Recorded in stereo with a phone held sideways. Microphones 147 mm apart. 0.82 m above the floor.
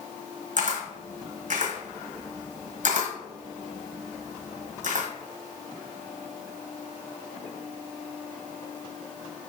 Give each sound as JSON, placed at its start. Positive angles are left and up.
{"t": 0.6, "sound": "a camera shutter", "side_deg": -65, "distance_m": 1.2}